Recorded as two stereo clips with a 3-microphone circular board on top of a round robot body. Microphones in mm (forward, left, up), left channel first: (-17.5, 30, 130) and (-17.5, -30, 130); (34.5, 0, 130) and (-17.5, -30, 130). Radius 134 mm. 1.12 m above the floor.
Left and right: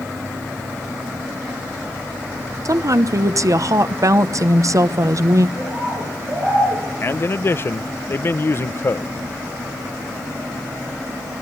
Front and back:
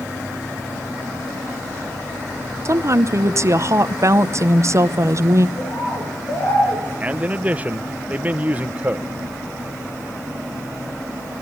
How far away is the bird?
About 9.5 m.